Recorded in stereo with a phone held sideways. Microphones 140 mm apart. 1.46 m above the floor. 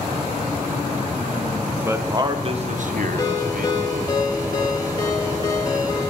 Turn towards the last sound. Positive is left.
turn(degrees=25)  # may be behind; listen again after turning